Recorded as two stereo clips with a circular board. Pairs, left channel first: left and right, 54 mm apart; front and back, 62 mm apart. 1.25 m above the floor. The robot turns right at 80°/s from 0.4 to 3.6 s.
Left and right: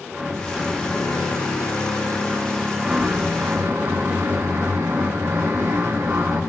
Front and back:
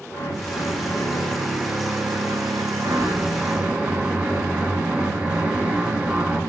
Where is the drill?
5° right, 6 m; by 6.4 s 110° right, 6 m.